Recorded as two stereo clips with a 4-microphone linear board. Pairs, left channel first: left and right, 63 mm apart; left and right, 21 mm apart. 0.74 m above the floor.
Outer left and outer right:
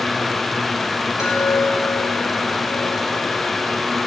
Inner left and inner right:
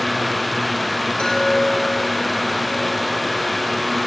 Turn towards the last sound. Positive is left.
turn(degrees=65)  # may be behind; listen again after turning